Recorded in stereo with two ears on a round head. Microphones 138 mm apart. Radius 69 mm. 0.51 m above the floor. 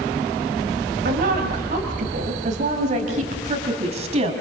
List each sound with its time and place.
1.1 s a woman speaking: 65° right (ahead or behind), 3 m; by 4.3 s 45° right (ahead or behind), 4 m